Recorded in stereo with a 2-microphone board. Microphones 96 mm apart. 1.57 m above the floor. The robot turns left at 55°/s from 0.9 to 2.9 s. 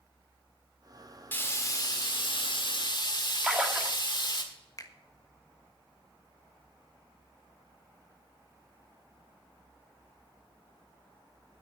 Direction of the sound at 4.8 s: 35° left (ahead or behind).